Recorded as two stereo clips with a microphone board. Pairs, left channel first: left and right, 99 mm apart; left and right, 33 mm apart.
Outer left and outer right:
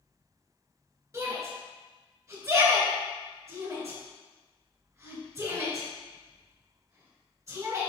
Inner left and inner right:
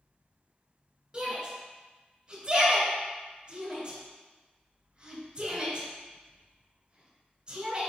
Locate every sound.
1.1 s a shout: 35° right (ahead or behind), 2.5 m